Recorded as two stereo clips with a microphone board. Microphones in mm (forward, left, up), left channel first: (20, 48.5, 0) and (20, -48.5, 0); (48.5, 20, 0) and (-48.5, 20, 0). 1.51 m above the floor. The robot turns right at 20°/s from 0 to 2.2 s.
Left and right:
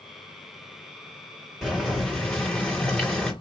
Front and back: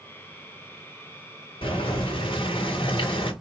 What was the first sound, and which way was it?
Boiling, 5° right.